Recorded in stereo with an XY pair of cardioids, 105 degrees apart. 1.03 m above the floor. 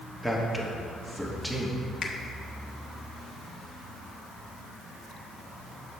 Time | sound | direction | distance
0.2 | a man speaking | 5° right | 1.4 m
2.0 | a finger snap | 45° left | 1.1 m